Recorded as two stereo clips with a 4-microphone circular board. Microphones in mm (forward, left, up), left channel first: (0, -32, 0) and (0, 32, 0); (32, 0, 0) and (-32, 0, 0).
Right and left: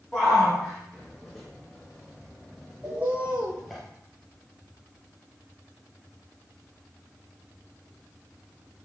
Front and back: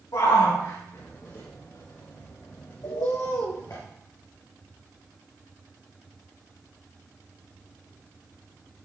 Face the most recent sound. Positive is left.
turn(degrees=25)